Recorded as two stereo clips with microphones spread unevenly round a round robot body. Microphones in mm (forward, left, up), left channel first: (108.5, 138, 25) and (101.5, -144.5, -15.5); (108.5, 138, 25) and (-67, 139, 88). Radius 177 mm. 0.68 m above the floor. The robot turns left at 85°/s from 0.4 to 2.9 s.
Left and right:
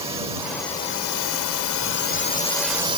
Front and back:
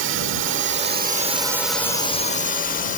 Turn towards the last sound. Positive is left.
turn(degrees=-20)